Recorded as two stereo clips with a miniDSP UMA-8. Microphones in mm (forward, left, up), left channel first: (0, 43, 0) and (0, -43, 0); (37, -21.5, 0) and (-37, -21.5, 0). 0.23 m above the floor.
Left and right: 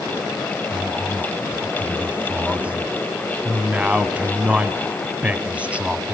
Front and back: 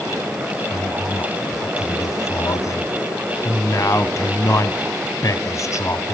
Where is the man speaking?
20° right, 1.3 m.